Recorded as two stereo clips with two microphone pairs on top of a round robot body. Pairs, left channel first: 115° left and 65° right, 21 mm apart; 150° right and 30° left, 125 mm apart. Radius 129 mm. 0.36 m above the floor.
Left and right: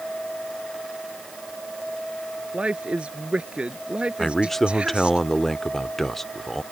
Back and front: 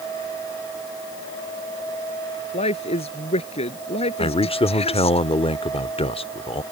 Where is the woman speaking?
105° right.